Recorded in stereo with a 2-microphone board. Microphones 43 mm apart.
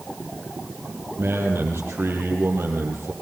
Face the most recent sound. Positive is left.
turn(degrees=-70)  # may be behind; listen again after turning